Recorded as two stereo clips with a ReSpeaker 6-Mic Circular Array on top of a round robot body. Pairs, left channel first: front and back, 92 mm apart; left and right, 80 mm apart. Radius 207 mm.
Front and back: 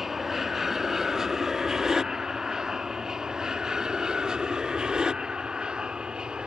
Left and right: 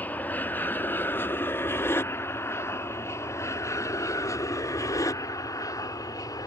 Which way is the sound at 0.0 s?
100° left.